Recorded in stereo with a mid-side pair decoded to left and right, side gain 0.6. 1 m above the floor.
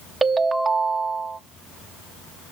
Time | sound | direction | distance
0.2 | a ringtone | 20° right | 0.8 m